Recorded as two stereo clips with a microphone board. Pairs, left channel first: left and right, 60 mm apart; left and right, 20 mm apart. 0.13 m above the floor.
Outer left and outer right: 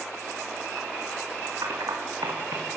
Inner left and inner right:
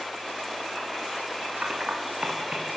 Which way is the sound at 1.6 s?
75° right (ahead or behind).